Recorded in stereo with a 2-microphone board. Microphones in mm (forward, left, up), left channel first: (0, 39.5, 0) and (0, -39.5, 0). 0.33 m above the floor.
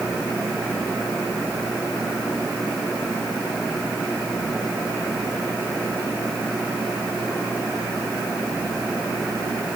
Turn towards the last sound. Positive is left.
No sound to turn to.